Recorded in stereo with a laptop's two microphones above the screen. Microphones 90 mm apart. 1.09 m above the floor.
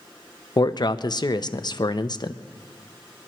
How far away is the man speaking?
About 0.7 m.